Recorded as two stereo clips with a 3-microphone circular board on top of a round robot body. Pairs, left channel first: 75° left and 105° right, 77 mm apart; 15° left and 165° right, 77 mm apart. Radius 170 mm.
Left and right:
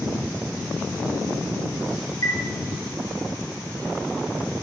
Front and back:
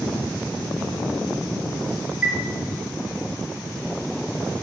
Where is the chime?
125° left, 1.3 m.